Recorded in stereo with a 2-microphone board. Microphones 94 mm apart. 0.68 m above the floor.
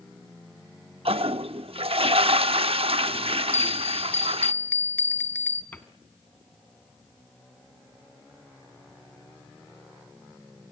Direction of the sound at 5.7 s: 20° left (ahead or behind).